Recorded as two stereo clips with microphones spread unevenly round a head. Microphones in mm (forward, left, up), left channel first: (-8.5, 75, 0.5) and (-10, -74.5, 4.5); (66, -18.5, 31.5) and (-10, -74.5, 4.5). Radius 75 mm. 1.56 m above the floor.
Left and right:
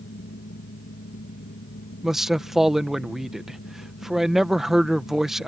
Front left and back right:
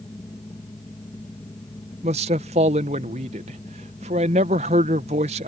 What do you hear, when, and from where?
0.0 s a fan: 100° left
2.0 s a man speaking: straight behind